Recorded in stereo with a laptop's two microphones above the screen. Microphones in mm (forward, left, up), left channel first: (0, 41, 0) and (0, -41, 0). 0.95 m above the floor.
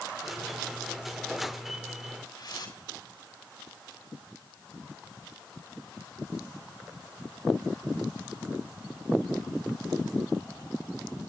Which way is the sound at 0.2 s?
Centre (ahead or behind).